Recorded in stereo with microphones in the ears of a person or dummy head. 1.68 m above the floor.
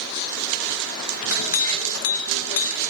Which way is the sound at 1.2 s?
80° left.